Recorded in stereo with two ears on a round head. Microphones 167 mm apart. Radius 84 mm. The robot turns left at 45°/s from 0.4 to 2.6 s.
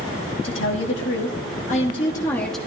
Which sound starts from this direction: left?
A woman speaking, at 0.4 s.